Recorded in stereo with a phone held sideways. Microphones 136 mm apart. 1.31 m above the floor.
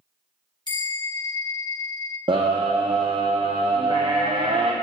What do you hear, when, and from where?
0.7 s a bell: 30° left (ahead or behind), 1.2 m
2.3 s a scream: 35° right (ahead or behind), 0.7 m